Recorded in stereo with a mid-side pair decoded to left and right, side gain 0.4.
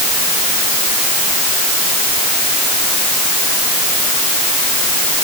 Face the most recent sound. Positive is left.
No sound to turn to.